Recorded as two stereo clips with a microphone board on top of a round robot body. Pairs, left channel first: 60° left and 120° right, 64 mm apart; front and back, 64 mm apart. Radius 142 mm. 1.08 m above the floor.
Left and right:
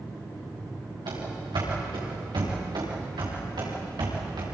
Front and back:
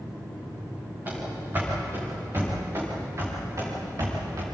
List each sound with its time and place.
1.1 s running footsteps: 115° right, 6.5 m; by 4.5 s 140° right, 7 m